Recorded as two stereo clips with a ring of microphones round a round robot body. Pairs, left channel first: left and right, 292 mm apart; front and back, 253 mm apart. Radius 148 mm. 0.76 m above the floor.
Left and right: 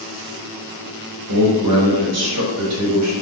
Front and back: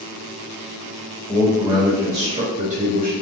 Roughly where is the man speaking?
Right.